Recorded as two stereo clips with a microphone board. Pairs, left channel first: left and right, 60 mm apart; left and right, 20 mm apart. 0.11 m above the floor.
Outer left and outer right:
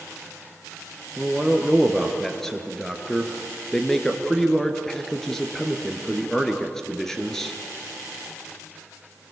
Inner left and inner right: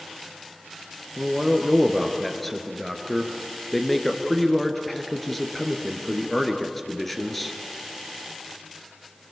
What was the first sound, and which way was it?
A man speaking, 5° left (ahead or behind).